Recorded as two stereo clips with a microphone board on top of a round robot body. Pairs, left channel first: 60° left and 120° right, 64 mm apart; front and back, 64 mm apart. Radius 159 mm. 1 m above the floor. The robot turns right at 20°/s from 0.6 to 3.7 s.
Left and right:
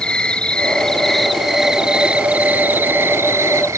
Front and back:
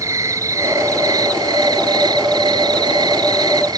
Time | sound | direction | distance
0.0 | an insect | 135° left | ?